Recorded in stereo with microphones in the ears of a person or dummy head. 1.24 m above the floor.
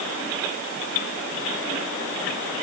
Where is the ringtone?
I don't hear a ringtone.